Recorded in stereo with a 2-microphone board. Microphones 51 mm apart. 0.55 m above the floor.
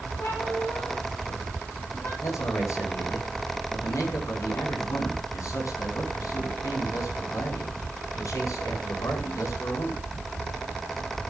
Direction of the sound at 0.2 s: 60° left (ahead or behind).